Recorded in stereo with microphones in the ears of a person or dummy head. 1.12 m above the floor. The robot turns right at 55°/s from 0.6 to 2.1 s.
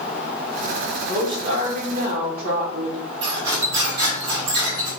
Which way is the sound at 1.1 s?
160° right.